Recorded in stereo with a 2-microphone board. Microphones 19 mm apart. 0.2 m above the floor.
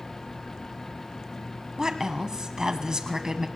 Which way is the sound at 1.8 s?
35° right (ahead or behind).